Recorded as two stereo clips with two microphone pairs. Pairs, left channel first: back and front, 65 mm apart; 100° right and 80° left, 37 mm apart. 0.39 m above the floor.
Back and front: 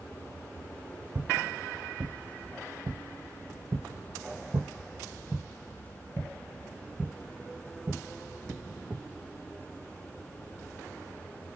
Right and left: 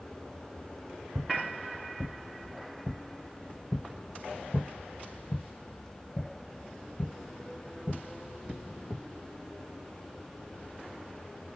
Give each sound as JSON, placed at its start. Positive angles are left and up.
{"t": 1.1, "sound": "footsteps", "azimuth_deg": 30, "distance_m": 1.9}